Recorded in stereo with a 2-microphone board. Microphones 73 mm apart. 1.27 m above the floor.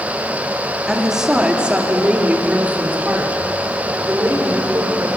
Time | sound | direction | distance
0.9 | a woman speaking | 5° right (ahead or behind) | 2.5 m